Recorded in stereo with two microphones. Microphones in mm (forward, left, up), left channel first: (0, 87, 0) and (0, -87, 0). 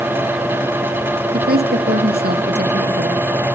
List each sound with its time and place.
1.3 s a woman speaking: 60° right (ahead or behind), 2.5 m